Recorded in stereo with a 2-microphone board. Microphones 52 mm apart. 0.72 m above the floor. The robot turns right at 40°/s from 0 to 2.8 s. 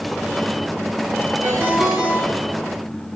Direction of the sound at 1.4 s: 40° right.